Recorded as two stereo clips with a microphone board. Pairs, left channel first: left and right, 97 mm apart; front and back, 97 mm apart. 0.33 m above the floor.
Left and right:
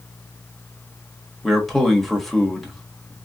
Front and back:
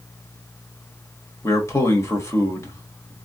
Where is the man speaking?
Straight ahead, 1.1 m.